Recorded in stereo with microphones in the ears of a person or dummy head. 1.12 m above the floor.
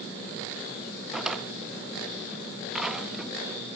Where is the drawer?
10° right (ahead or behind), 0.6 m.